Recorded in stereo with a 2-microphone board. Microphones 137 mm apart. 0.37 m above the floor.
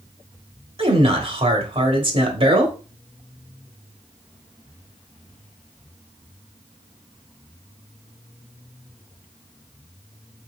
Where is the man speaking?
45° right (ahead or behind), 1.2 m.